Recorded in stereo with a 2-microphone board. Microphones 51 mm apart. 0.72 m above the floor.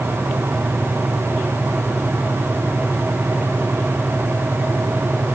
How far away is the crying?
No crying in this recording.